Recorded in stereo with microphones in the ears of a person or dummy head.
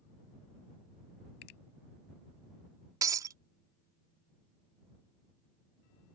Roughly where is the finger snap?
Left.